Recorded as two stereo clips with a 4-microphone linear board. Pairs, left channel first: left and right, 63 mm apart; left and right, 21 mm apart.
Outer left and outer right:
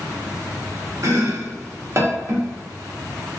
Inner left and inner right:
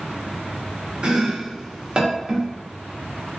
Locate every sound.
1.0 s chopping: 50° right (ahead or behind), 0.6 m